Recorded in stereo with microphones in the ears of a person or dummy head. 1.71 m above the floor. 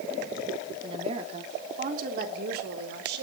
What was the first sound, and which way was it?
A woman speaking, 30° right (ahead or behind).